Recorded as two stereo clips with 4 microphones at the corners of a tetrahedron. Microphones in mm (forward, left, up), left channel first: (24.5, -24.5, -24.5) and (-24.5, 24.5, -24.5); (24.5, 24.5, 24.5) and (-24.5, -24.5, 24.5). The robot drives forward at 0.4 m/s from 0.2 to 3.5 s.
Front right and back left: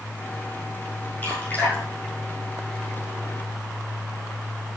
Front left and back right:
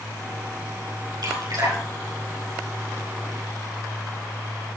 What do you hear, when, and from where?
1.2 s dripping: 110° right, 6.5 m; by 2.9 s 115° right, 6.5 m